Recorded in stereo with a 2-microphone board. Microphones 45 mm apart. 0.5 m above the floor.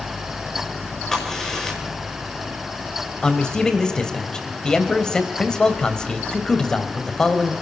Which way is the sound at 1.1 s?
10° left (ahead or behind).